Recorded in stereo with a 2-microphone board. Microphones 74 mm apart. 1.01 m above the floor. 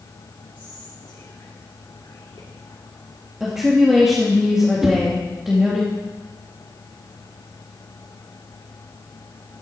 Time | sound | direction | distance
0.6 | whispering | 75° left (ahead or behind) | 2.5 m
3.4 | a woman speaking | 5° right (ahead or behind) | 2 m
4.8 | a whoosh | 5° right (ahead or behind) | 1.6 m